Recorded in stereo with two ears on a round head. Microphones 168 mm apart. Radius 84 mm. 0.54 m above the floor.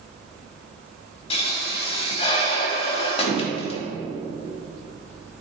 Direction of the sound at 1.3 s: 30° left (ahead or behind).